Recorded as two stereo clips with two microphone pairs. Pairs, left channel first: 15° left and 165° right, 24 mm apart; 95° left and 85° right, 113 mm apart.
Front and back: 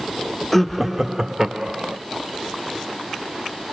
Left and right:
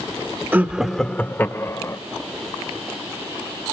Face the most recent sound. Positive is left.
turn(degrees=150)